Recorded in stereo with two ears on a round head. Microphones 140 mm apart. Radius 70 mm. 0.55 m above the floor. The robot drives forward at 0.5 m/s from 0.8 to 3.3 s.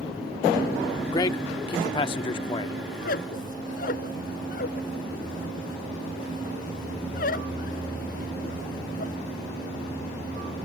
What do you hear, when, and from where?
1.1 s a man speaking: 25° left (ahead or behind); by 2.8 s 30° left (ahead or behind)
2.9 s a squeak: 65° left (ahead or behind); by 9.2 s 60° left (ahead or behind)